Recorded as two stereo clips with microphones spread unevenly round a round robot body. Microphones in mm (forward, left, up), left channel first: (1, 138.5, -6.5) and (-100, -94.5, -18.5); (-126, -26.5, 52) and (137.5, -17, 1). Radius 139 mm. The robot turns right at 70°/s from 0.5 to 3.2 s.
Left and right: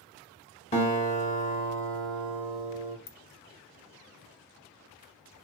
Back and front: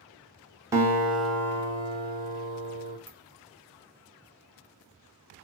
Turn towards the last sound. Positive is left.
turn(degrees=100)